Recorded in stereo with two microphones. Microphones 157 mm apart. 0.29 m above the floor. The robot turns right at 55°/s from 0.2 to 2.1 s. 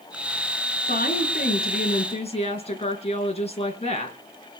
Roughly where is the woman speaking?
Left.